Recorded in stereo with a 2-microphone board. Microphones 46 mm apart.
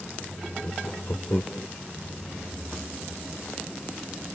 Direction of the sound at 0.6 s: 45° left (ahead or behind).